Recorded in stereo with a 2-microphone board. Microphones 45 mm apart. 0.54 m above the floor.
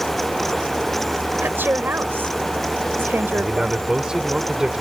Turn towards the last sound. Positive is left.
turn(degrees=-15)  # may be behind; listen again after turning